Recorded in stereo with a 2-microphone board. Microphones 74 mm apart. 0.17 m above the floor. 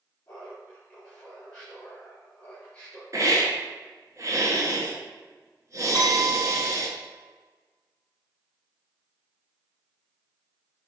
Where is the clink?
65° right (ahead or behind), 4 m.